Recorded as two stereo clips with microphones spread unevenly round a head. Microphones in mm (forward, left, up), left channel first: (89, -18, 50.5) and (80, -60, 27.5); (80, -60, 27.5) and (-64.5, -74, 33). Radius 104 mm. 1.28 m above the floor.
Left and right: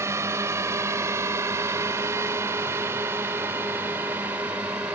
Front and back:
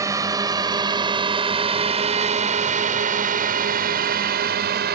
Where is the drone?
105° right; by 5.0 s 175° right.